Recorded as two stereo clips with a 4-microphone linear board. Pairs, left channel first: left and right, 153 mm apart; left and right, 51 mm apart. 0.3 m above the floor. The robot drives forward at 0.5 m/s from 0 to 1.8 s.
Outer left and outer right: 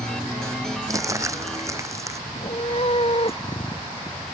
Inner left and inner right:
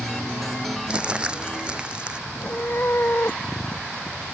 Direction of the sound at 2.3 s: 40° left (ahead or behind).